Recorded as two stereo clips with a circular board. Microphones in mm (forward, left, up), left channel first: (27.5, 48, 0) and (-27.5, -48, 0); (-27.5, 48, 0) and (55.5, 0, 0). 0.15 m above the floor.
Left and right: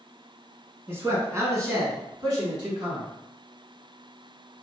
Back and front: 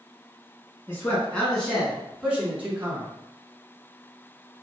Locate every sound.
0.9 s a man speaking: 165° right, 1.2 m; by 3.1 s 85° right, 1.5 m